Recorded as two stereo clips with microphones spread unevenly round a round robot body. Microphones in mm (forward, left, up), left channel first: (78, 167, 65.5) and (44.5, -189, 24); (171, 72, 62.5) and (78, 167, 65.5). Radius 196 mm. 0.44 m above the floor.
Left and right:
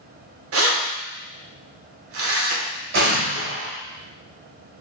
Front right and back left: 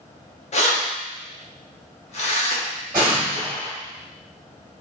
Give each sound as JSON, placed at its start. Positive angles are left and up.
{"t": 0.5, "sound": "keys jangling", "azimuth_deg": -60, "distance_m": 0.8}
{"t": 2.9, "sound": "an explosion", "azimuth_deg": -150, "distance_m": 0.8}